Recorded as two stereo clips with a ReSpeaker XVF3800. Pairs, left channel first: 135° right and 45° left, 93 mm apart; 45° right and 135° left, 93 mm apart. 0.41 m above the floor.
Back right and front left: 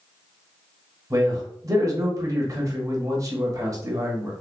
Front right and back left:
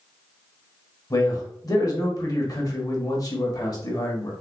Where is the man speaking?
5° right, 1.3 m.